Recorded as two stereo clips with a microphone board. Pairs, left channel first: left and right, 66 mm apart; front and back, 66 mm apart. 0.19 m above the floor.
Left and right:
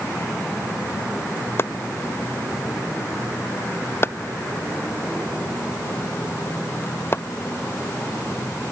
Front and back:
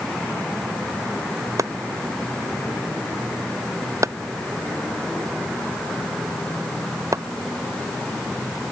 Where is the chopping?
140° left.